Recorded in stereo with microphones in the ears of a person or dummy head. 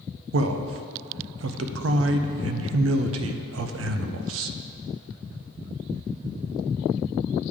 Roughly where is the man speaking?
Right.